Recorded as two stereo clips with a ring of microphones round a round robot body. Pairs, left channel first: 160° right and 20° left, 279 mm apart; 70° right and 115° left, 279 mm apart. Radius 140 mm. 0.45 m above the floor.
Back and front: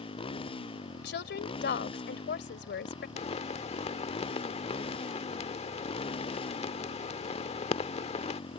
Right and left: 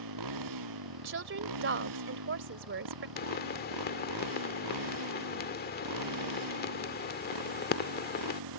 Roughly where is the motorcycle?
Behind left.